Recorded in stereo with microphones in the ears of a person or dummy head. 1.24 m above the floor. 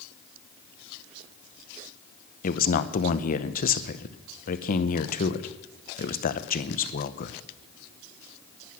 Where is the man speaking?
45° left (ahead or behind), 0.9 m.